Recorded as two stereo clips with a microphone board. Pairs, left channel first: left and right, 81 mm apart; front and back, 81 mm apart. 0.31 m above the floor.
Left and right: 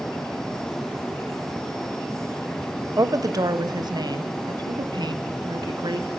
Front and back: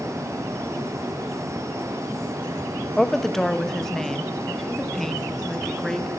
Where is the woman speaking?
85° right, 1.3 m.